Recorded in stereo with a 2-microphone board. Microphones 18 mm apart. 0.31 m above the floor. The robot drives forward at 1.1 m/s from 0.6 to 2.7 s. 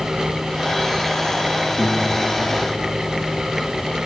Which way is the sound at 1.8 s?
65° left (ahead or behind).